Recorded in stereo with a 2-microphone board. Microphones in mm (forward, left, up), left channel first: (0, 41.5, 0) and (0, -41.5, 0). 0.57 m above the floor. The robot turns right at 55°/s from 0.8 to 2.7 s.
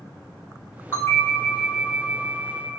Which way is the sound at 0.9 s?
155° left.